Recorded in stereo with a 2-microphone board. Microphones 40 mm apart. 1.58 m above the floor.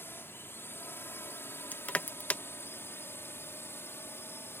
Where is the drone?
65° left (ahead or behind); by 4.6 s 70° left (ahead or behind).